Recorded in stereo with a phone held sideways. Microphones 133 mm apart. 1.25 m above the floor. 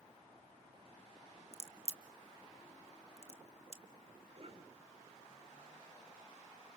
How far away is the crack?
About 1.2 m.